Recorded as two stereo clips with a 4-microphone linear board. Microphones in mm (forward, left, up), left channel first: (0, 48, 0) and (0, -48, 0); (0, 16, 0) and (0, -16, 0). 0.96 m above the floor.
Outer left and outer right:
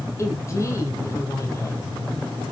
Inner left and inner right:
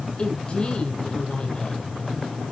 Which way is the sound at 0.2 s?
35° left (ahead or behind).